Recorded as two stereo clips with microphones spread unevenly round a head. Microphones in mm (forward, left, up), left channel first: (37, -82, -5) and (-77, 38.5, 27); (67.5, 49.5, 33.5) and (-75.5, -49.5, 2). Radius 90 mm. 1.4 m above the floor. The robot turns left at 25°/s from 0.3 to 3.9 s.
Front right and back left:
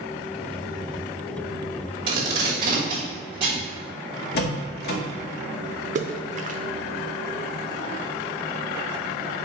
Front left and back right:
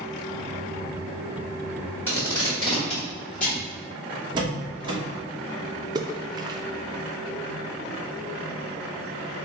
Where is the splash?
175° left, 0.5 m.